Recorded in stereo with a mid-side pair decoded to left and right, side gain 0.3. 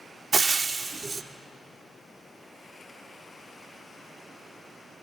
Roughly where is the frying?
Ahead right.